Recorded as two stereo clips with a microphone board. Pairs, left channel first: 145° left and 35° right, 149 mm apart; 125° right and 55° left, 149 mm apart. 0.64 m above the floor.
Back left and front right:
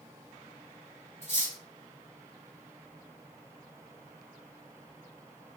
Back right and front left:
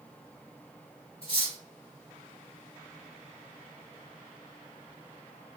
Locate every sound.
1.2 s cutlery clinking: 175° right, 1.5 m